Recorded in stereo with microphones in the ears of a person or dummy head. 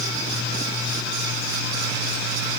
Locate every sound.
Only background noise.